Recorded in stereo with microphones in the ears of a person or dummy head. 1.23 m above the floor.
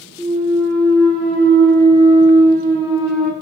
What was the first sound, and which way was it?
A clunk, 50° right (ahead or behind).